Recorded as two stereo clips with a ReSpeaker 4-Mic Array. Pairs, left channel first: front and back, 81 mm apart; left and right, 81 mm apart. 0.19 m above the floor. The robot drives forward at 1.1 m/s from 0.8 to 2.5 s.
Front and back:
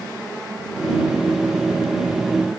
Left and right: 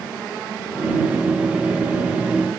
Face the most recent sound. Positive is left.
No sound to turn to.